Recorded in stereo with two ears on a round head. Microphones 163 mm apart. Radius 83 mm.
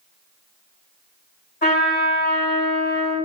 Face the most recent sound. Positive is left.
turn(degrees=55)  # may be behind; listen again after turning